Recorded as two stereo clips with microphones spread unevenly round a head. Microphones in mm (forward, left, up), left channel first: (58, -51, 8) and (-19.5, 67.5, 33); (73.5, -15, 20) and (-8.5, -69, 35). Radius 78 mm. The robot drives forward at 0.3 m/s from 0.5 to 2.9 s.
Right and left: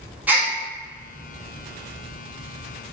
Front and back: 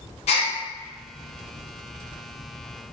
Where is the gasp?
45° left, 1.2 m.